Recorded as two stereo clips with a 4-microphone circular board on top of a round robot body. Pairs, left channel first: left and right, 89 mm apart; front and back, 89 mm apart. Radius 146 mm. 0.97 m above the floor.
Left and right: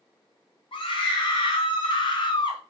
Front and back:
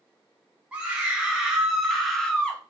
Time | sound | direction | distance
0.7 | a scream | 105° left | 2.0 m